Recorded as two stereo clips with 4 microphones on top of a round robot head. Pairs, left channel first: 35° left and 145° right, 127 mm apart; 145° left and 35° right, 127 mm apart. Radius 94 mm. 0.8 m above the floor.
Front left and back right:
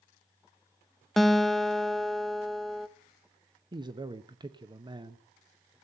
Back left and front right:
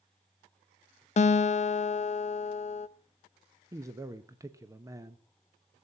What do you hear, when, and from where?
1.2 s a guitar: 125° left, 0.7 m
3.7 s a man speaking: 95° right, 0.8 m